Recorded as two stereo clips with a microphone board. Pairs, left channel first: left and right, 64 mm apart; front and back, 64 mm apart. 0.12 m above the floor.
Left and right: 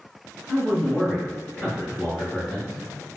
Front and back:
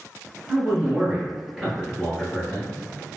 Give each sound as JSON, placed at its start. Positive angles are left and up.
{"t": 0.5, "sound": "a man speaking", "azimuth_deg": 155, "distance_m": 1.7}